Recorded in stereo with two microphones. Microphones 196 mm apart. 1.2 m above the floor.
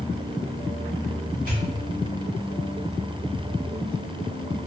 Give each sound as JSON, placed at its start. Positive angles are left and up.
{"t": 1.5, "sound": "a pop", "side_deg": -45, "distance_m": 1.4}